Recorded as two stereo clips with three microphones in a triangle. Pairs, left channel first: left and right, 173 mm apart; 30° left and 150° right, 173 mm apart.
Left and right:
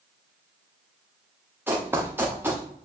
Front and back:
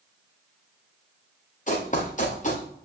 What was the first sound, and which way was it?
Running footsteps, 15° right.